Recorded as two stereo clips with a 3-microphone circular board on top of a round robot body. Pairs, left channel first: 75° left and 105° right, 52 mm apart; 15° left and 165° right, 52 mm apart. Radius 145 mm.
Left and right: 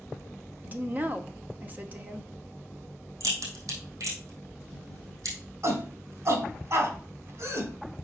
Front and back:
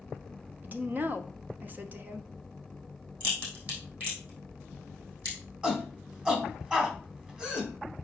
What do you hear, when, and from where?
0.6 s a woman speaking: 135° right, 1.2 m
3.2 s a crack: 105° right, 3.5 m
5.6 s a shout: 95° right, 3 m